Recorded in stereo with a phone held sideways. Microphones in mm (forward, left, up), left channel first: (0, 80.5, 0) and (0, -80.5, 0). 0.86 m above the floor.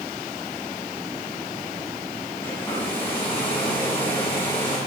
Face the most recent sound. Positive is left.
turn(degrees=15)  # may be behind; listen again after turning